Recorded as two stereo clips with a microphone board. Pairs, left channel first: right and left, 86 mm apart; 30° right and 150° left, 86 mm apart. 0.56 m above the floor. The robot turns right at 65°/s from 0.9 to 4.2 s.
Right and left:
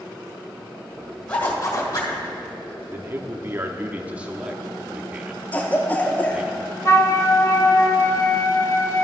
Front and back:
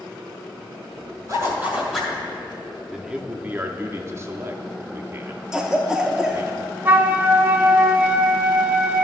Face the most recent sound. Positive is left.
turn(degrees=-145)